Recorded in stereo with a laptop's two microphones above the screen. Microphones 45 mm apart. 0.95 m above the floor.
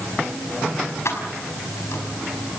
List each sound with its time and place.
1.1 s keys jangling: 75° left (ahead or behind), 5 m